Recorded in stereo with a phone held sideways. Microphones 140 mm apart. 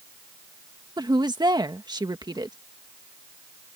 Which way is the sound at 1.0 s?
30° right (ahead or behind).